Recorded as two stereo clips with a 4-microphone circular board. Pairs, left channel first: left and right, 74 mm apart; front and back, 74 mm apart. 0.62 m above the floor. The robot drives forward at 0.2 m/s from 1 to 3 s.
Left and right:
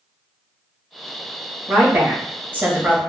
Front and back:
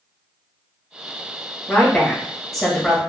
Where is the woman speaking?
55° right, 0.9 m; by 3.0 s 95° right, 0.9 m.